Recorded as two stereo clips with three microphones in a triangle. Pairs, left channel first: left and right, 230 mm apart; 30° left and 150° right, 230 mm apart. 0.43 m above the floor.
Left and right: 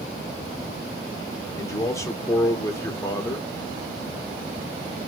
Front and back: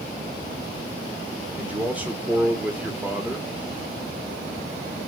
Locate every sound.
1.6 s a man speaking: 140° left, 1.1 m